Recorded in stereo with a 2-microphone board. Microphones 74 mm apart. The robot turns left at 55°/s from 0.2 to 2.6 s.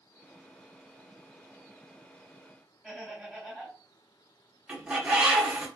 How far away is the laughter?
About 1.9 m.